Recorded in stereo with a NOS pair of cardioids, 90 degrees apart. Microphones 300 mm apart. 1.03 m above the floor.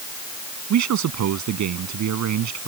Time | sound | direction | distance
0.7 | a man speaking | 70° right | ?